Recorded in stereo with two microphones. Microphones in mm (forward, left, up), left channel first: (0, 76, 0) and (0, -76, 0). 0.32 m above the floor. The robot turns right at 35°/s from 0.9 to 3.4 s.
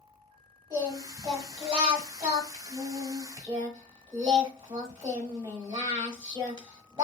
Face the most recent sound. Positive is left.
turn(degrees=-50)